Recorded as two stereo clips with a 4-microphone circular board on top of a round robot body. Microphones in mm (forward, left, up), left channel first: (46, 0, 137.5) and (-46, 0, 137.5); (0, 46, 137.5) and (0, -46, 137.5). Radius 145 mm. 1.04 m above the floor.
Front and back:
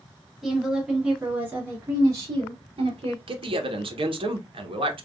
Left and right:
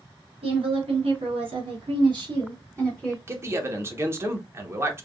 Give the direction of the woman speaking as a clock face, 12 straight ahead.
3 o'clock.